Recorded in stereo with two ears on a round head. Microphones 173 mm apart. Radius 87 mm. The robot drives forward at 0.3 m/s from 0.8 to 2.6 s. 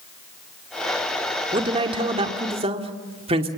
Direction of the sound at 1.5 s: 25° right (ahead or behind).